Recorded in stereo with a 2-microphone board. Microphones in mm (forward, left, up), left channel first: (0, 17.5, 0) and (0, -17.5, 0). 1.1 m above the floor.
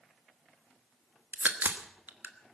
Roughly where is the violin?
No violin in this recording.